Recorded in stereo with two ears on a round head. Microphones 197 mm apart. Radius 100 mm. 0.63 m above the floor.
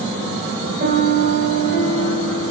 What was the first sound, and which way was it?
A piano, 35° right (ahead or behind).